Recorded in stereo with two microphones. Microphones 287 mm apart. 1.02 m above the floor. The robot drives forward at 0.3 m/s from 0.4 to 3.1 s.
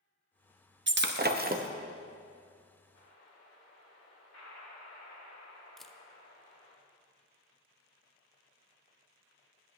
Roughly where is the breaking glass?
Right.